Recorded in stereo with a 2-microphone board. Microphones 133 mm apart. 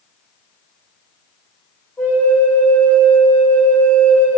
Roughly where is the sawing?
No sawing in this recording.